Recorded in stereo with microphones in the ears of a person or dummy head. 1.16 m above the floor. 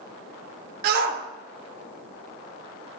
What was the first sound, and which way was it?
A shout, 50° right (ahead or behind).